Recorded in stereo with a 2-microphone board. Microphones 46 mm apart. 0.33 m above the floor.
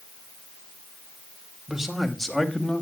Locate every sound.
1.7 s a man speaking: 10° right (ahead or behind), 1.7 m; by 2.8 s 20° left (ahead or behind), 2 m